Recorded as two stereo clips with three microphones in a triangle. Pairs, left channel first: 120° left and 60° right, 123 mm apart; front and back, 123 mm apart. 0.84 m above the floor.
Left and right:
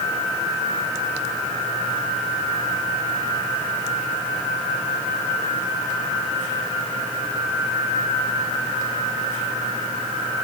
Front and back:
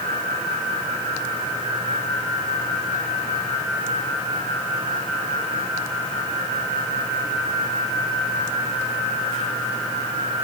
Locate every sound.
Only background noise.